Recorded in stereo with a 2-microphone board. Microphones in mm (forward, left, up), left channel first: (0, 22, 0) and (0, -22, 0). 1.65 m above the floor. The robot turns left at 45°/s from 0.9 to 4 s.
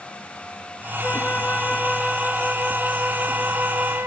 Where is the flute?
55° left, 1.2 m; by 4.1 s 80° right, 1.2 m.